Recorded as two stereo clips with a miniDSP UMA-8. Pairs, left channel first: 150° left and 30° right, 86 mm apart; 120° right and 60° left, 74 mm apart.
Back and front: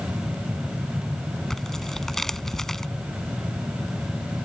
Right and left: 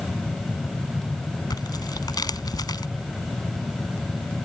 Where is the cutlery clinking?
I don't hear cutlery clinking.